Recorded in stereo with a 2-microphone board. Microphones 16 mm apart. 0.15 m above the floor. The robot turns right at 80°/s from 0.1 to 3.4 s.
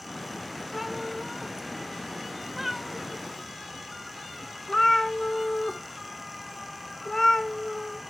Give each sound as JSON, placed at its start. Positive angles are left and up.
{"t": 0.7, "sound": "a cat meowing", "side_deg": -5, "distance_m": 0.8}